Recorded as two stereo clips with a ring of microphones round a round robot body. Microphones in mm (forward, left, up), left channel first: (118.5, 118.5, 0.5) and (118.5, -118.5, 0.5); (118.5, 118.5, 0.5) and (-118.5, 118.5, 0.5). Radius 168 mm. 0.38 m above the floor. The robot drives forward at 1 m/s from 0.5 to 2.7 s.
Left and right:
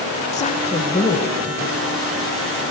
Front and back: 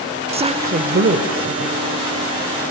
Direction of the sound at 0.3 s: 130° left.